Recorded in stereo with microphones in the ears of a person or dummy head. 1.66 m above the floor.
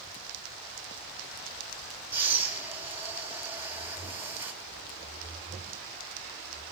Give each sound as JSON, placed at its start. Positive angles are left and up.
{"t": 2.1, "sound": "breathing", "side_deg": -10, "distance_m": 4.0}